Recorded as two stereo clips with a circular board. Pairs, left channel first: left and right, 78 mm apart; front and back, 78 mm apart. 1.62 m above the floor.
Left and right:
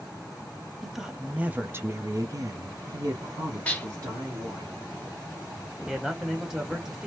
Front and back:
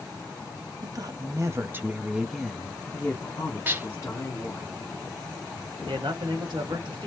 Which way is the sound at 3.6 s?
140° left.